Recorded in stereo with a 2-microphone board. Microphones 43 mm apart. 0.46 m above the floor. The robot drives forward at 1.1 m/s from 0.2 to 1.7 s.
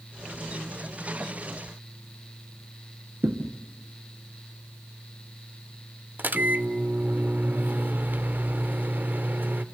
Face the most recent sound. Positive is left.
turn(degrees=-45)  # may be behind; listen again after turning